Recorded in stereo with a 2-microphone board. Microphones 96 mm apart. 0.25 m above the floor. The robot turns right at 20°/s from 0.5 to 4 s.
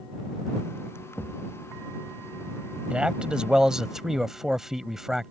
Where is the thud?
20° left (ahead or behind); by 1.4 s 15° left (ahead or behind).